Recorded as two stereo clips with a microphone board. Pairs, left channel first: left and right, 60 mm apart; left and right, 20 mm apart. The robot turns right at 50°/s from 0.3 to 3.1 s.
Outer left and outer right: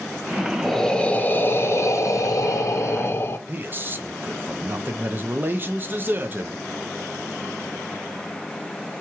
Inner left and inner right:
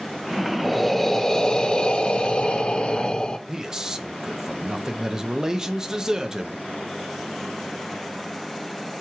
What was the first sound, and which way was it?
Breathing, 5° left.